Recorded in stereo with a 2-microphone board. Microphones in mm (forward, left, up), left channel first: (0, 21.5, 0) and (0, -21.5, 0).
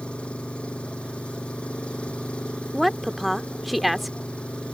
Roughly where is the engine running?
Left.